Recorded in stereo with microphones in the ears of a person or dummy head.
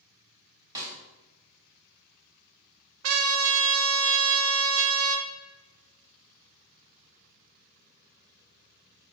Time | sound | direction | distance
0.8 | a snare drum | 20° right (ahead or behind) | 1.2 m
3.0 | a trumpet | 80° right | 0.6 m